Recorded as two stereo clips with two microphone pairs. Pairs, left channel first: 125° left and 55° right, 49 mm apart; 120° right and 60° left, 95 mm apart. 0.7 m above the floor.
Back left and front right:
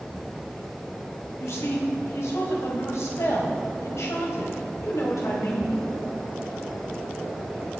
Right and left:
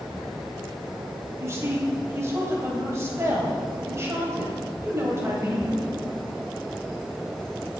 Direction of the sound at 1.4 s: 120° left.